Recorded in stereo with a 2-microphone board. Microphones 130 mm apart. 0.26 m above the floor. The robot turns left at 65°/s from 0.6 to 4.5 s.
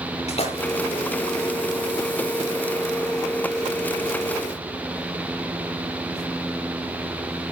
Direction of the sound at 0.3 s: 50° left (ahead or behind).